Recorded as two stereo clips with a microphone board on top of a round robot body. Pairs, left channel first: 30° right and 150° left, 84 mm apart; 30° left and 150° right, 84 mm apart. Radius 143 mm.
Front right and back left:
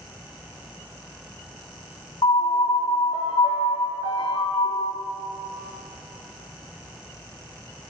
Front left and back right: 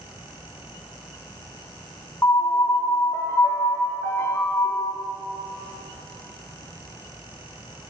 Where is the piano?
20° right, 0.8 m.